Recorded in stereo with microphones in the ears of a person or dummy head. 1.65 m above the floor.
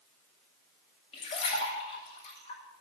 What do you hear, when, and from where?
1.1 s a splash: 40° left (ahead or behind), 8.5 m